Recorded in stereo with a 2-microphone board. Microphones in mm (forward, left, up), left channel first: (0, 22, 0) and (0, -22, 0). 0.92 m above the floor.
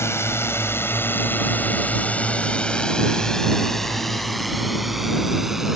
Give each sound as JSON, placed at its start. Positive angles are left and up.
{"t": 0.0, "sound": "a drone", "side_deg": 75}